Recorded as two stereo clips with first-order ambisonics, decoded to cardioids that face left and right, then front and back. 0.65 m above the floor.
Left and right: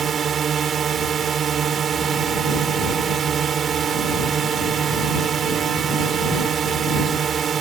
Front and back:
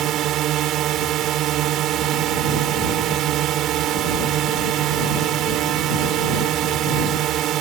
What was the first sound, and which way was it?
A drone, 145° right.